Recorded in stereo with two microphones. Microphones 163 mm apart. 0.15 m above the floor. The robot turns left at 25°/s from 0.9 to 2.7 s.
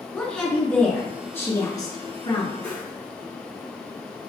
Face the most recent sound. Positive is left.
turn(degrees=10)  # may be behind; listen again after turning